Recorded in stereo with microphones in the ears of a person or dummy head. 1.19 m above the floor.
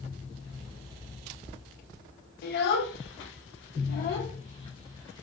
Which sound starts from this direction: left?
A child speaking, at 2.4 s.